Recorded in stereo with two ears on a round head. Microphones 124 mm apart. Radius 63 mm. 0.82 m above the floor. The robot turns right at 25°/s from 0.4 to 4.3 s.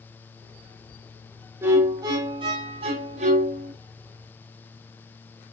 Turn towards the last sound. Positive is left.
turn(degrees=-95)